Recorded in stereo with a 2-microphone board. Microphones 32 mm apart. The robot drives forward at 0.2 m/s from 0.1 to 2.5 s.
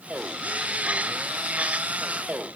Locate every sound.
Only background noise.